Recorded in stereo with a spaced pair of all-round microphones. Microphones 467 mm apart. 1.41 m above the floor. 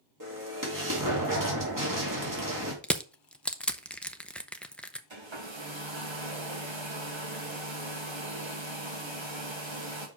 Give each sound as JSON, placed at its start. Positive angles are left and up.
{"t": 0.2, "sound": "an explosion", "side_deg": -40, "distance_m": 2.5}
{"t": 2.8, "sound": "crushing", "side_deg": 0, "distance_m": 0.6}
{"t": 5.1, "sound": "a hair dryer", "side_deg": -75, "distance_m": 1.6}